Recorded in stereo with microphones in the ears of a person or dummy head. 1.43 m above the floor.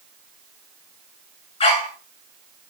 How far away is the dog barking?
About 2 m.